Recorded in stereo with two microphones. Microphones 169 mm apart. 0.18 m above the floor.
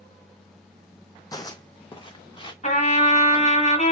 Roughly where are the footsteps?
Left.